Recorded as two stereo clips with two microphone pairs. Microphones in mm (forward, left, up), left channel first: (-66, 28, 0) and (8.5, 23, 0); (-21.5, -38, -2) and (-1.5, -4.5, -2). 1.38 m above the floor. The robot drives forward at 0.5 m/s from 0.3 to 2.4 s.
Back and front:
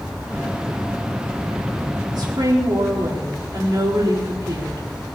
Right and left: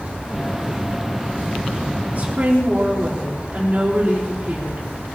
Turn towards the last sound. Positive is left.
turn(degrees=15)